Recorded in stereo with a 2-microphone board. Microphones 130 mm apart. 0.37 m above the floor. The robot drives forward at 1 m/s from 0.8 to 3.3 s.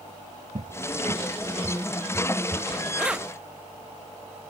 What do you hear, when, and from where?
0.6 s a cupboard door: 65° right (ahead or behind); by 2.7 s 20° right (ahead or behind)
3.0 s keys jangling: 5° right (ahead or behind)